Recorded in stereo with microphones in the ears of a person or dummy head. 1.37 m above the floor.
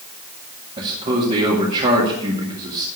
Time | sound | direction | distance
0.8 | a man speaking | 35° right (ahead or behind) | 1.9 m